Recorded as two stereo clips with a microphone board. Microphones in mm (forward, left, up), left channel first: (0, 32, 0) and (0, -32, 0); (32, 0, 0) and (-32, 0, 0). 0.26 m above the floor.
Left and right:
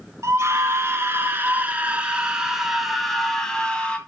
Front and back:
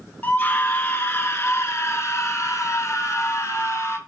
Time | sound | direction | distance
0.2 | a scream | 50° right | 2.0 m